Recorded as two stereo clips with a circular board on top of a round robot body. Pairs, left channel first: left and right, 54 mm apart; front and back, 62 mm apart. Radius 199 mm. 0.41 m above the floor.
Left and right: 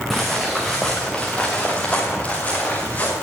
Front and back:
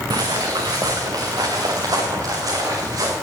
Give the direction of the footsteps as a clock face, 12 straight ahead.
6 o'clock.